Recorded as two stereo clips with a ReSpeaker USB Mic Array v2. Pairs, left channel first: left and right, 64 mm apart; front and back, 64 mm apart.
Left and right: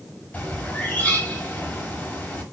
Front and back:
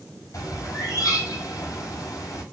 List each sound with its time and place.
0.3 s a bird: 25° left, 5 m